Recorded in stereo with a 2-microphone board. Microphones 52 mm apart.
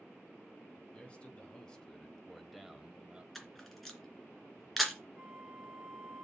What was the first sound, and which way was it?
A man speaking, 20° left (ahead or behind).